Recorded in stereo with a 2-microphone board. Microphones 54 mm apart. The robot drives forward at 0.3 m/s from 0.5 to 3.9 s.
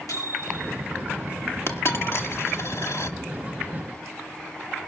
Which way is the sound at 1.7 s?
50° left (ahead or behind).